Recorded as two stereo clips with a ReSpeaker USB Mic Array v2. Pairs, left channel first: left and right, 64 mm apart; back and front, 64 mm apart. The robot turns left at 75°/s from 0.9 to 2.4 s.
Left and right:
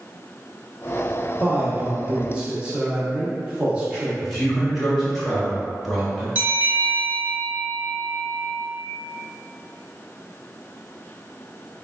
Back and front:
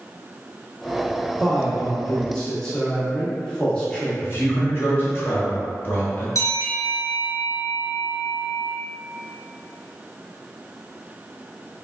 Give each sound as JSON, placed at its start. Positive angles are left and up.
{"t": 1.4, "sound": "a man speaking", "azimuth_deg": -50, "distance_m": 0.7}
{"t": 4.2, "sound": "a man speaking", "azimuth_deg": 180, "distance_m": 0.9}
{"t": 6.3, "sound": "a bell", "azimuth_deg": -150, "distance_m": 1.2}